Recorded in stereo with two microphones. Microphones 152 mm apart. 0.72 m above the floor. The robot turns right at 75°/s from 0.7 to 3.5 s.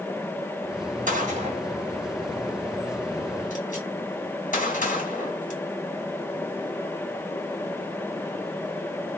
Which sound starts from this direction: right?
A gunshot, at 1.1 s.